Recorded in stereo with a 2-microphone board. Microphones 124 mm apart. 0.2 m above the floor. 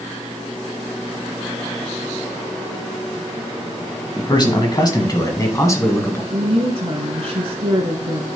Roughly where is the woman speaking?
Right.